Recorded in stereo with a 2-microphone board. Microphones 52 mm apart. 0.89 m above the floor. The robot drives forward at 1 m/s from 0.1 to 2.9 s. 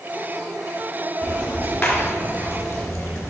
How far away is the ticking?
About 3.5 m.